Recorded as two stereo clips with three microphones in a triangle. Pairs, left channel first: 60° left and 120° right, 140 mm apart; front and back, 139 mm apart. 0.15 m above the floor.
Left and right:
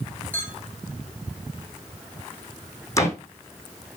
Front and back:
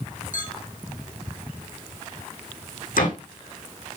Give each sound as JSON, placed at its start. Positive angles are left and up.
{"t": 0.3, "sound": "a clink", "azimuth_deg": -20, "distance_m": 5.0}
{"t": 3.0, "sound": "a door slam", "azimuth_deg": -10, "distance_m": 5.0}